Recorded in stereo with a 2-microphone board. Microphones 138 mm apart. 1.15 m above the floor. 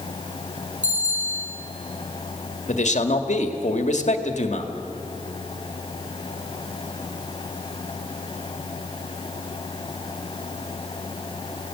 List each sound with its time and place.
0.8 s a bicycle bell: 60° right (ahead or behind), 9 m
2.7 s a man speaking: 60° left (ahead or behind), 2.0 m